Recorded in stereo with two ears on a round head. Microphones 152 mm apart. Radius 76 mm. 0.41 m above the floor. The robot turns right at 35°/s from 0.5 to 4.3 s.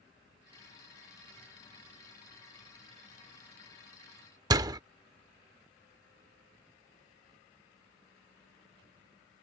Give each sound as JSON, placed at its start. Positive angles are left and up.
{"t": 4.5, "sound": "a door slam", "side_deg": -20}